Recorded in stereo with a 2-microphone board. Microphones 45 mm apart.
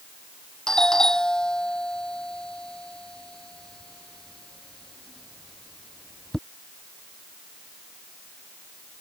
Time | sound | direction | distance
0.7 | a doorbell | 15° left (ahead or behind) | ?